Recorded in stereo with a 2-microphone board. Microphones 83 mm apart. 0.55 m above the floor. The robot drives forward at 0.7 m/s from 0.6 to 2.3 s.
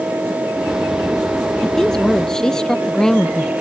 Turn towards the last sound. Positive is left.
turn(degrees=5)  # may be behind; listen again after turning